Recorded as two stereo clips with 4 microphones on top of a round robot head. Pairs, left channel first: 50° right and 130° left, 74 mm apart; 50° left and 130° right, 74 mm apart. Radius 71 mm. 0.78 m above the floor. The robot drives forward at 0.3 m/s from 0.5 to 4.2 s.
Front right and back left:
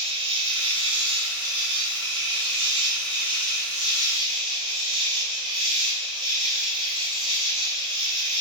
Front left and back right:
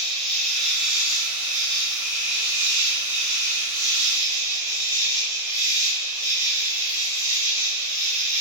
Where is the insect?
140° left, 0.8 m; by 8.4 s 165° left, 1.7 m.